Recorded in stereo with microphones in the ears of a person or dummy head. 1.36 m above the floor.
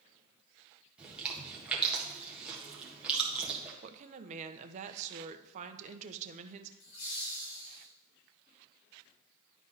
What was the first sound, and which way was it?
Chewing, 5° right (ahead or behind).